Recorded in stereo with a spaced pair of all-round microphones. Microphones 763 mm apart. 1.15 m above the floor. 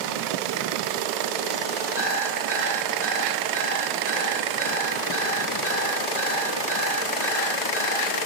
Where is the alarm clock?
60° left (ahead or behind), 7.5 m.